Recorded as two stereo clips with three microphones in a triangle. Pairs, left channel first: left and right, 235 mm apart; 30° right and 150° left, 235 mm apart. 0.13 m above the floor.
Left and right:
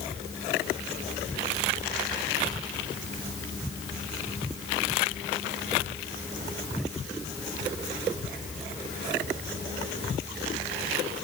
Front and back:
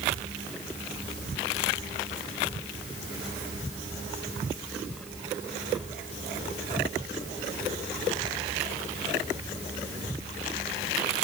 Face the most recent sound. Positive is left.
No sound to turn to.